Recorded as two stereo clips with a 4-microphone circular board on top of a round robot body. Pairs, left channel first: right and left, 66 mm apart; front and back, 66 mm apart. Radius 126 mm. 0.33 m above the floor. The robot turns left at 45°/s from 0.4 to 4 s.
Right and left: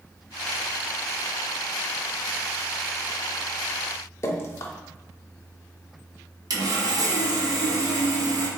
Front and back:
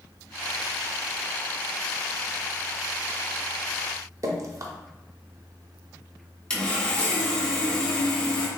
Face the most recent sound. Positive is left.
turn(degrees=75)